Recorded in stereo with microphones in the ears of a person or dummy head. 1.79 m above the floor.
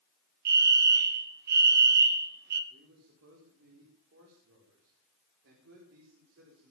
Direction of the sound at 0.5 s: 55° right (ahead or behind).